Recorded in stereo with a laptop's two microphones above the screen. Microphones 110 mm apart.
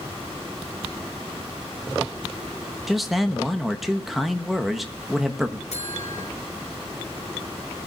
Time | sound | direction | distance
2.9 | a man speaking | centre (ahead or behind) | 1.1 m
5.7 | a buzzer | 85° left | 5 m